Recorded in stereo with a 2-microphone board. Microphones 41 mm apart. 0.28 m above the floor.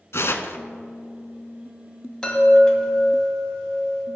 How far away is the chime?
About 2.0 m.